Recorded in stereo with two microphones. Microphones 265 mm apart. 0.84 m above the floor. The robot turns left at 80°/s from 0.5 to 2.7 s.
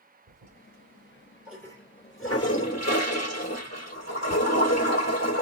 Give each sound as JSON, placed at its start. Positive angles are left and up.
{"t": 0.3, "sound": "a toilet flushing", "azimuth_deg": -95, "distance_m": 3.0}